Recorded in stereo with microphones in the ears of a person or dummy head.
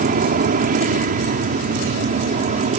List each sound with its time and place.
0.0 s an aircraft: 40° right (ahead or behind); by 2.8 s 35° right (ahead or behind)